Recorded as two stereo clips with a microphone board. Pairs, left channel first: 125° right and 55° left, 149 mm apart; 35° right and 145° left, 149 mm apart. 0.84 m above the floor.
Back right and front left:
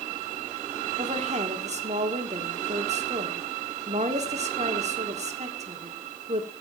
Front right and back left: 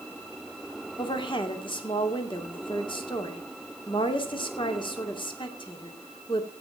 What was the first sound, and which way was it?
A woman speaking, 20° left.